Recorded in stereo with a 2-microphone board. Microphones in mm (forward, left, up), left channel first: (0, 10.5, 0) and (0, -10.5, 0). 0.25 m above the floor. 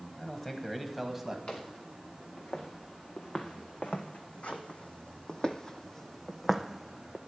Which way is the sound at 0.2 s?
25° left (ahead or behind).